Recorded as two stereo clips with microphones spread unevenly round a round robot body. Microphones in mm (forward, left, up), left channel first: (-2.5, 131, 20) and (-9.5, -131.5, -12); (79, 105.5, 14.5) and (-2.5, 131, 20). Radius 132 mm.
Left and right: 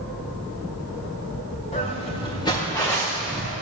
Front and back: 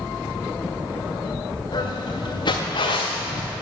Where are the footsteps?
20° left, 2 m; by 3.5 s 5° right, 1.5 m.